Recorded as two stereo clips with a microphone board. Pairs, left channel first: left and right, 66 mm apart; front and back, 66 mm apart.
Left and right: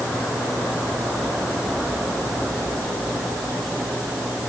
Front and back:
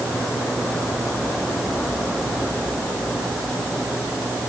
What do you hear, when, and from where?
Only background noise.